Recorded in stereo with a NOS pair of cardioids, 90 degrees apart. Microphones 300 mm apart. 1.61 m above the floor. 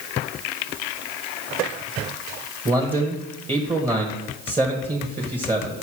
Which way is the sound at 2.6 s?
20° right.